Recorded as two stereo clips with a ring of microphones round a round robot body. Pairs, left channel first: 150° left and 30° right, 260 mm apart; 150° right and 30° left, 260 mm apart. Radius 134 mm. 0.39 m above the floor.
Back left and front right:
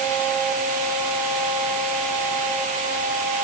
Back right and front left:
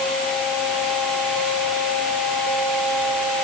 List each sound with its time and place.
Only background noise.